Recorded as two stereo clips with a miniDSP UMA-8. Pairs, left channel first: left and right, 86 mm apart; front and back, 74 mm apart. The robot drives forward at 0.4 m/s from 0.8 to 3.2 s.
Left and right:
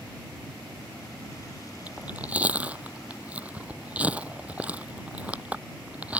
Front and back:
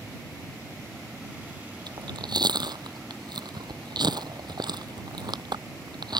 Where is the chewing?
165° right.